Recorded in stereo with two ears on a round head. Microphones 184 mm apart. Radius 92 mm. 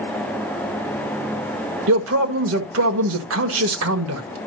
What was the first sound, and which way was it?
A man speaking, 75° right (ahead or behind).